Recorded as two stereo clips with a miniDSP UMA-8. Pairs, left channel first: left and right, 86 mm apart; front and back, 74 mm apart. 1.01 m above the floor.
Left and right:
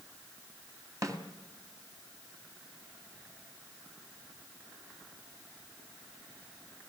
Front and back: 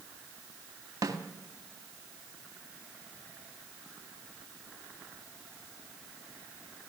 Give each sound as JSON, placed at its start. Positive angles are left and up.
{"t": 1.0, "sound": "a snare drum", "azimuth_deg": -135, "distance_m": 2.5}